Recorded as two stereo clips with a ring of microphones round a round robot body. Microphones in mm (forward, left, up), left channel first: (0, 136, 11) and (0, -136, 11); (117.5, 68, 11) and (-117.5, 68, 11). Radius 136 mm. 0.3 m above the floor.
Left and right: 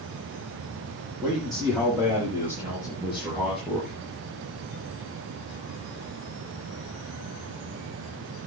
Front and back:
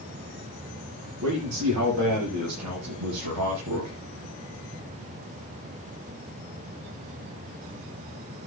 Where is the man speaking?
170° right, 9 m; by 4.0 s straight behind, 5 m.